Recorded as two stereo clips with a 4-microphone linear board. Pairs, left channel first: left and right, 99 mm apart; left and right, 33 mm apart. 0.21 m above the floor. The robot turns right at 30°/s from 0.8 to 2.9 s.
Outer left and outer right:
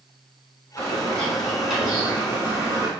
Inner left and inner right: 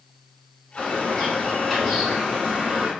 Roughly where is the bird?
Behind left.